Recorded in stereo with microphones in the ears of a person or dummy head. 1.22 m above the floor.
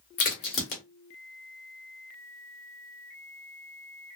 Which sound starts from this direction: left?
A crack, at 0.2 s.